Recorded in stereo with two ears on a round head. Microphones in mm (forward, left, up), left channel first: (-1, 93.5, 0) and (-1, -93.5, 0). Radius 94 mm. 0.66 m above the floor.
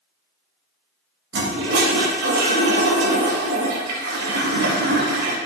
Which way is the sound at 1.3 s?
75° right (ahead or behind).